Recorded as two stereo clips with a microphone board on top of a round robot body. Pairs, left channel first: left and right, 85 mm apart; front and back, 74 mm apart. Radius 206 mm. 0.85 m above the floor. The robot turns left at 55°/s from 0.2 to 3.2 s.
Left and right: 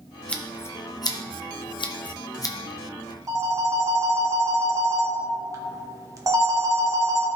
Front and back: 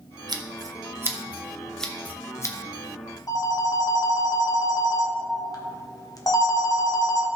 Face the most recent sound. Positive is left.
turn(degrees=-35)